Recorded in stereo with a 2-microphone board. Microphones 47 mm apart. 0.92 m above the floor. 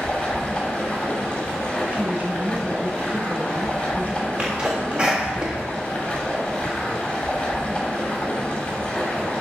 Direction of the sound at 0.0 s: 20° left (ahead or behind).